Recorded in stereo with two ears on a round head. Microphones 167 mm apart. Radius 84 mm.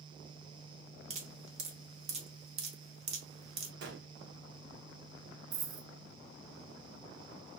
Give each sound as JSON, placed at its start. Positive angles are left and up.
{"t": 1.1, "sound": "dripping", "side_deg": -35, "distance_m": 1.0}
{"t": 3.8, "sound": "a gunshot", "side_deg": -65, "distance_m": 0.9}
{"t": 5.5, "sound": "a dropped coin", "side_deg": -40, "distance_m": 0.6}